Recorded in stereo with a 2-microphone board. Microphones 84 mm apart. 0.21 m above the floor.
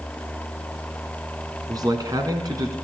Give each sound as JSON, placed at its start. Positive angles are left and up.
{"t": 1.7, "sound": "a man speaking", "side_deg": -45, "distance_m": 1.9}